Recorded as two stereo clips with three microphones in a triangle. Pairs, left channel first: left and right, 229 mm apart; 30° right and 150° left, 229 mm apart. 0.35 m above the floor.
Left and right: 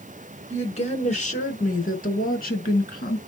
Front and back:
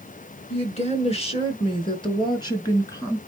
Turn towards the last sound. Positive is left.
turn(degrees=45)